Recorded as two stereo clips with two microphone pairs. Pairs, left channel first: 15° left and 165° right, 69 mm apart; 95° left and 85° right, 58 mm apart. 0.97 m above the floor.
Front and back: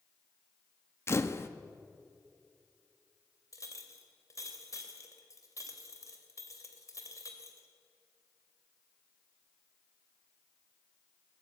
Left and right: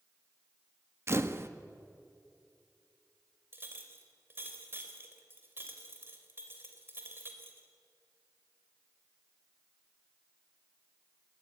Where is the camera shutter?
40° right, 1.1 m.